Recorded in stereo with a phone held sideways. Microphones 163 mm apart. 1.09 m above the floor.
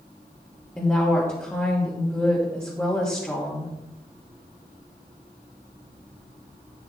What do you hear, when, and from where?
0.8 s a woman speaking: 15° left (ahead or behind), 1.6 m